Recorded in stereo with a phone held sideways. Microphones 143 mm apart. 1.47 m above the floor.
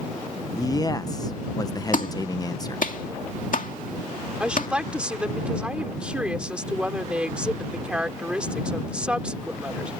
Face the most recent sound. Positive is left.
turn(degrees=-10)  # may be behind; listen again after turning